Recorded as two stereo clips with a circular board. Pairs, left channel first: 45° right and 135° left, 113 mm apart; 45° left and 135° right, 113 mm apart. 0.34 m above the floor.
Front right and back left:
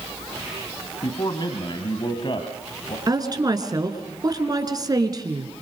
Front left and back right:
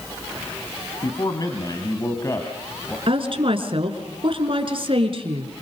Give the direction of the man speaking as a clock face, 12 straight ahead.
12 o'clock.